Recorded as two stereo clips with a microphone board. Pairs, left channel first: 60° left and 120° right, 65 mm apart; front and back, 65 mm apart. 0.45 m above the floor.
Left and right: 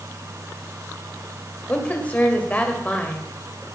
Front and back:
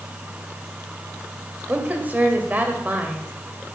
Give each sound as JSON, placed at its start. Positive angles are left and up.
{"t": 1.7, "sound": "a woman speaking", "azimuth_deg": 120, "distance_m": 2.0}